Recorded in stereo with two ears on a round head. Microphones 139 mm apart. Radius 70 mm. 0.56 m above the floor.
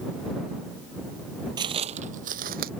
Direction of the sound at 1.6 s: 30° right (ahead or behind).